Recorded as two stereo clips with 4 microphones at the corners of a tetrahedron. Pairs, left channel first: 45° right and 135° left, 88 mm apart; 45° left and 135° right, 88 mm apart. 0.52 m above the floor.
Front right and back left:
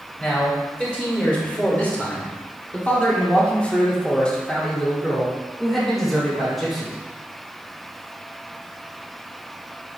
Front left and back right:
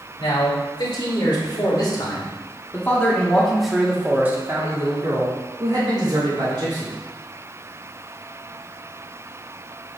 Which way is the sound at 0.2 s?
30° left.